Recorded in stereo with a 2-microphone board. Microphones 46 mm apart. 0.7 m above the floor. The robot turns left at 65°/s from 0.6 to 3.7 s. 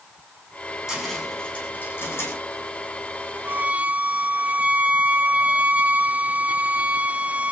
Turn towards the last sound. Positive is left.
turn(degrees=-35)  # may be behind; listen again after turning